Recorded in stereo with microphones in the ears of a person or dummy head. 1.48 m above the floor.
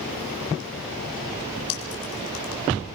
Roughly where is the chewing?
Left.